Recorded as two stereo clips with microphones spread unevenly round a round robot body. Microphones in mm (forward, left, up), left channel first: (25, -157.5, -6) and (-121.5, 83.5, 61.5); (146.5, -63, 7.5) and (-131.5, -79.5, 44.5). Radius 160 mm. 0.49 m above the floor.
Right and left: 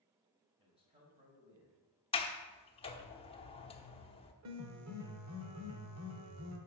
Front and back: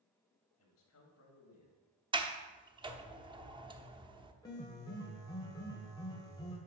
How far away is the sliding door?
About 1.1 m.